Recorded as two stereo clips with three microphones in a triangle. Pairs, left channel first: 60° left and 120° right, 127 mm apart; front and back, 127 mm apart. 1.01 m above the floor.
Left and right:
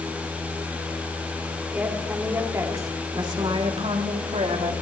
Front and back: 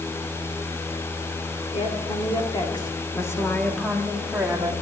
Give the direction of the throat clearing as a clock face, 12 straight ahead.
No throat clearing in this recording.